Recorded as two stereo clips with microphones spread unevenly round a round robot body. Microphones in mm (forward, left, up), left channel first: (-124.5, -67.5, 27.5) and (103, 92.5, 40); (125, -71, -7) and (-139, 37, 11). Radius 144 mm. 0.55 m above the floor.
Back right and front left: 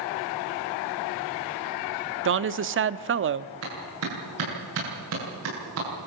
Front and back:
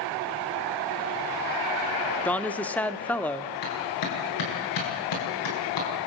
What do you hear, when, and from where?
2.2 s a woman speaking: 55° left, 1.0 m
3.6 s a clap: 5° right, 8.5 m